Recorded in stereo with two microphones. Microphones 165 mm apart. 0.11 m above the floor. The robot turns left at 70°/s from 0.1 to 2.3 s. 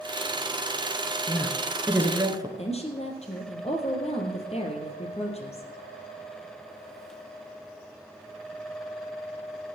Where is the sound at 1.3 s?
30° left, 1.9 m; by 2.5 s 45° right, 1.9 m.